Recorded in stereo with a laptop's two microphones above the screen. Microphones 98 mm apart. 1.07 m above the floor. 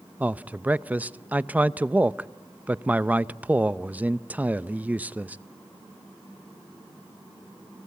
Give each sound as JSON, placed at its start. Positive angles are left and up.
{"t": 0.2, "sound": "a man speaking", "side_deg": -15, "distance_m": 0.6}